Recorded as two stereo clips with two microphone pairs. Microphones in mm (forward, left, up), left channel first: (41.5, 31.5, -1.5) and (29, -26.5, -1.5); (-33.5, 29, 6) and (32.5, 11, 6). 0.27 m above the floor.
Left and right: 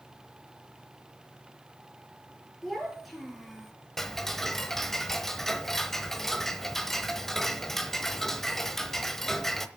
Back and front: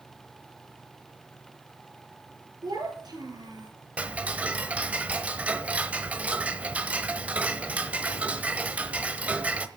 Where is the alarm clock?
No alarm clock in this recording.